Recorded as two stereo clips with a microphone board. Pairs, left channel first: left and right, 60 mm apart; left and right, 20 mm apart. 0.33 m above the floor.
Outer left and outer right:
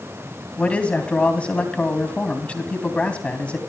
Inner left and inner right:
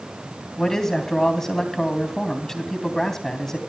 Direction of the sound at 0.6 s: 20° left (ahead or behind).